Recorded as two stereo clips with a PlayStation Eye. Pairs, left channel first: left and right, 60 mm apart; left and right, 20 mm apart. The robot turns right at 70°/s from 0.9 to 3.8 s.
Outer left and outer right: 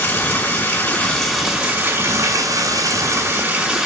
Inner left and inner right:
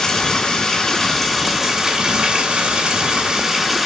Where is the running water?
145° left, 2.5 m; by 3.9 s 10° right, 2.5 m.